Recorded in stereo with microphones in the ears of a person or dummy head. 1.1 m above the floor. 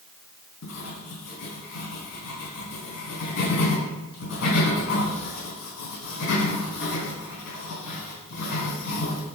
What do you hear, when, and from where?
0.6 s writing: 70° left (ahead or behind), 3.5 m